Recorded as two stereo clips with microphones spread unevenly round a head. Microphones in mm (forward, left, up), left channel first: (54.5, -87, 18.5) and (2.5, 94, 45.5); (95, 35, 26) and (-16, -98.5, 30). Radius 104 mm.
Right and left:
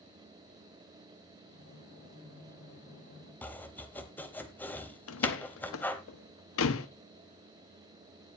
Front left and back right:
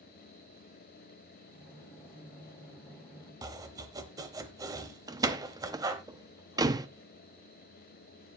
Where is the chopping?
165° right, 0.9 m.